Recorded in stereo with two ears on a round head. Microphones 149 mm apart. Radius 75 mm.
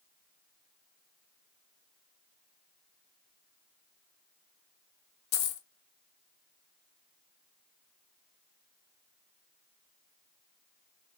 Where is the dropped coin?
65° left (ahead or behind), 0.5 m.